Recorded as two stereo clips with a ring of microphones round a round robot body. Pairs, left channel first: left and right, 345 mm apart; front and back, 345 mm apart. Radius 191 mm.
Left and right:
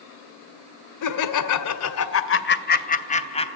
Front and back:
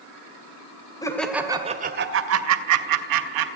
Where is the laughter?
80° left, 2 m; by 3.6 s 165° left, 3.5 m.